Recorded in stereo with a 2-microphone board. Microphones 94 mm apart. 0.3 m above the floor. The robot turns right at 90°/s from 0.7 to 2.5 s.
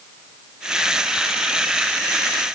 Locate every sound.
Only background noise.